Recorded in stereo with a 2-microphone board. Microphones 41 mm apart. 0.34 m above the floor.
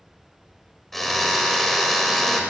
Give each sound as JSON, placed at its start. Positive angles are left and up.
{"t": 0.9, "sound": "a drill", "side_deg": 5, "distance_m": 1.5}